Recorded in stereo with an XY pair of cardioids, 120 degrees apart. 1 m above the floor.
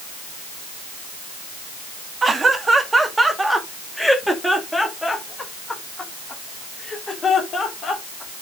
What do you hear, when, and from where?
2.2 s laughter: 25° right, 2 m; by 8.4 s 35° left, 3.5 m